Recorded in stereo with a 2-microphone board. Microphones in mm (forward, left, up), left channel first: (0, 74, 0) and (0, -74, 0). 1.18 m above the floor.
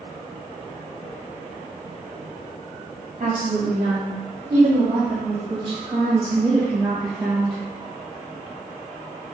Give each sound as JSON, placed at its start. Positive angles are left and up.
{"t": 3.2, "sound": "a woman speaking", "side_deg": -65, "distance_m": 3.0}